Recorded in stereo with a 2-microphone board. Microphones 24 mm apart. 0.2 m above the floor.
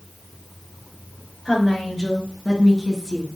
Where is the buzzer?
No buzzer in this recording.